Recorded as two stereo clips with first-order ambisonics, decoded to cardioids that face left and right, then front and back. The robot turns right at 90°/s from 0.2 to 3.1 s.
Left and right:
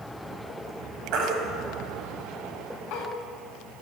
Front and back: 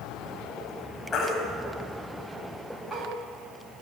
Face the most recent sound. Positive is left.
turn(degrees=110)